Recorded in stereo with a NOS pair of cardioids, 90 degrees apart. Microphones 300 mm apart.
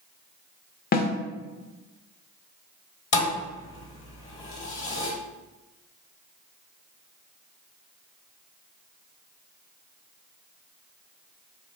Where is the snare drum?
30° left, 0.7 m.